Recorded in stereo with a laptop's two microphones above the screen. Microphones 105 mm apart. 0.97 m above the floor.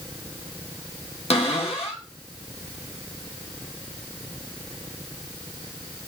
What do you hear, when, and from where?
1.3 s a cupboard door: 75° left (ahead or behind), 0.8 m